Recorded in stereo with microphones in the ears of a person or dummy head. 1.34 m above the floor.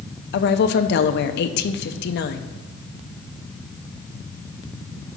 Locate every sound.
0.3 s a woman speaking: 55° left (ahead or behind), 0.6 m